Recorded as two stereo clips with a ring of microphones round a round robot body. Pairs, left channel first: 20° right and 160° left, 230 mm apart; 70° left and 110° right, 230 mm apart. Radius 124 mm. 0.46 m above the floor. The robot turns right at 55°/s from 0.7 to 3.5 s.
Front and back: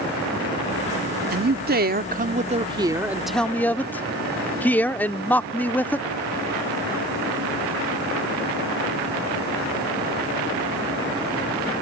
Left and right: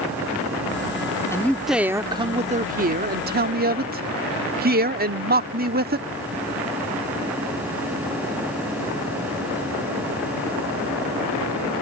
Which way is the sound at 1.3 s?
140° left.